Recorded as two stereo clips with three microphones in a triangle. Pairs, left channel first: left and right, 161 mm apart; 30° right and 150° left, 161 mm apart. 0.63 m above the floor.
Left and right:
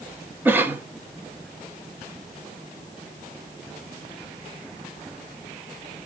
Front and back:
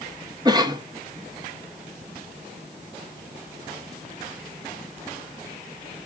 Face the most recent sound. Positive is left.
turn(degrees=-160)